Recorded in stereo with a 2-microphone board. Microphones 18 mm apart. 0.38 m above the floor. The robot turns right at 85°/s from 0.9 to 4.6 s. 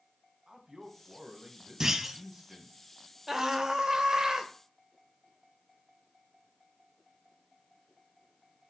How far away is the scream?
About 1.7 m.